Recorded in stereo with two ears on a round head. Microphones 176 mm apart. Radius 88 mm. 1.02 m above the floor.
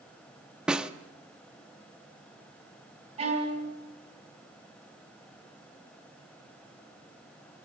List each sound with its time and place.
0.7 s a snare drum: 5° right (ahead or behind), 0.6 m
3.2 s a violin: 30° right (ahead or behind), 4 m